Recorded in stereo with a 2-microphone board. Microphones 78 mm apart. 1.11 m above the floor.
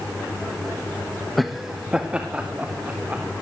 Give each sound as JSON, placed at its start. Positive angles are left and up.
{"t": 1.4, "sound": "laughter", "side_deg": 0, "distance_m": 1.3}